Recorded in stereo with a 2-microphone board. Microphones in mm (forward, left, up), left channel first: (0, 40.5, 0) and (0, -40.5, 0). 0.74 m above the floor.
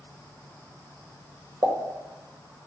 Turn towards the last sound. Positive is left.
turn(degrees=-45)  # may be behind; listen again after turning